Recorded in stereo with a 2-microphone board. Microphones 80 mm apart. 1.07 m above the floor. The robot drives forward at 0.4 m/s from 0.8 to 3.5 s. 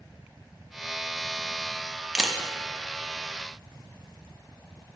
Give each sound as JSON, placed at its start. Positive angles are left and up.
{"t": 2.1, "sound": "a camera shutter", "side_deg": -5, "distance_m": 0.6}